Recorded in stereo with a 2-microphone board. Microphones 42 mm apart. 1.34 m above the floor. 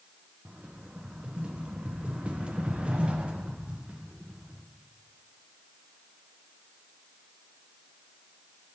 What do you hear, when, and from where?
0.5 s a rattle: 30° right (ahead or behind), 0.6 m